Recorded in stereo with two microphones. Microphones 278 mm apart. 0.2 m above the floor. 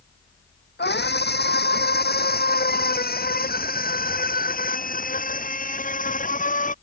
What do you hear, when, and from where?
0.8 s a scream: 35° left (ahead or behind); by 6.7 s 30° left (ahead or behind)